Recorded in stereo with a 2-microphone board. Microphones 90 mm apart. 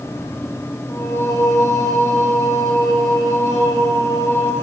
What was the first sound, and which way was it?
Singing, 35° left (ahead or behind).